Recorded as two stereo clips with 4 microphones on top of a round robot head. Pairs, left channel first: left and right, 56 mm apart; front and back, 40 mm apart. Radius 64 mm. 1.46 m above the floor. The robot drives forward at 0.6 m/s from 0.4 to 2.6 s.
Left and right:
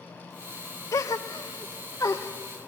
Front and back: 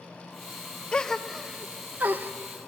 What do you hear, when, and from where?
0.9 s a gasp: 65° left, 0.7 m; by 2.3 s 145° left, 0.9 m